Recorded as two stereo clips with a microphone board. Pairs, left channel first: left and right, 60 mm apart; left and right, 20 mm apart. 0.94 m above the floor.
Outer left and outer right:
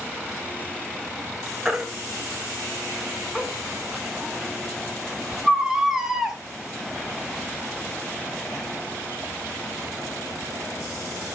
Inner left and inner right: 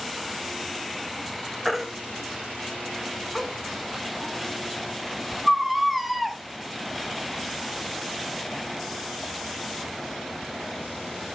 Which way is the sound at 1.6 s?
10° right (ahead or behind).